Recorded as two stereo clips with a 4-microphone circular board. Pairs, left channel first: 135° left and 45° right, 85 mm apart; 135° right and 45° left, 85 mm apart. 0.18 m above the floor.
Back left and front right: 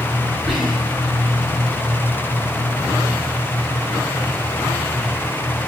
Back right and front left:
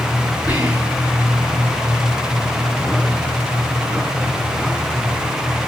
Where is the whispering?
135° right, 2.5 m.